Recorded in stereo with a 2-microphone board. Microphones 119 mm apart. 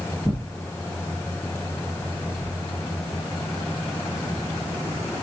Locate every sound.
0.2 s tearing paper: 20° left (ahead or behind), 2.5 m